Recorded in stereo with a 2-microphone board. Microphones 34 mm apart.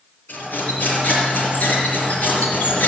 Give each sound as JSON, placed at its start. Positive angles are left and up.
{"t": 0.3, "sound": "cutlery clinking", "side_deg": 60, "distance_m": 4.5}